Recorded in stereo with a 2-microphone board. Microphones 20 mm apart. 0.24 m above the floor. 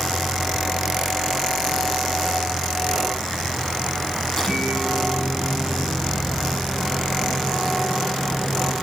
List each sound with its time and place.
4.3 s a microwave: 15° left (ahead or behind), 8.5 m